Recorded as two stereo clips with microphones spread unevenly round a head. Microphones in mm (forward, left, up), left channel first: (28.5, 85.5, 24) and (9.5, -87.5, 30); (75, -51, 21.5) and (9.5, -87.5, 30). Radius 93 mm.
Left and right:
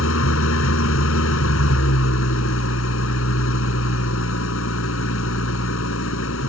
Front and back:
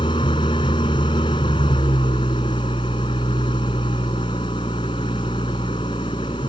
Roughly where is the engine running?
Left.